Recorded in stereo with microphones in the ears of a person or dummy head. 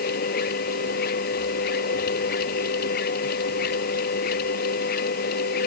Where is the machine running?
50° left (ahead or behind).